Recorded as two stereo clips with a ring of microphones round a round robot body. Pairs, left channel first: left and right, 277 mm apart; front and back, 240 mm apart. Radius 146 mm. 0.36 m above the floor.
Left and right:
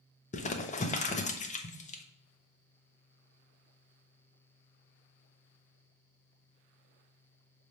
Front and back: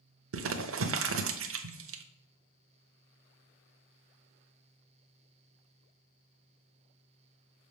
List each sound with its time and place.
0.3 s crumpling: 155° left, 0.7 m